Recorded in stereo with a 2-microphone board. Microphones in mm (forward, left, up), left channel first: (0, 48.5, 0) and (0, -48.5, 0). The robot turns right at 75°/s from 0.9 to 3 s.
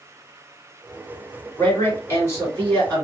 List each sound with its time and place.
1.6 s a man speaking: 60° left, 1.9 m; by 3.0 s 165° left, 1.9 m